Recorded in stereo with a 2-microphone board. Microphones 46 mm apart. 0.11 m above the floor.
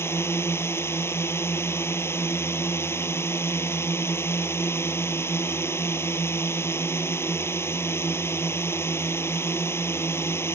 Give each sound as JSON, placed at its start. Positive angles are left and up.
{"t": 0.0, "sound": "a drone", "side_deg": 60}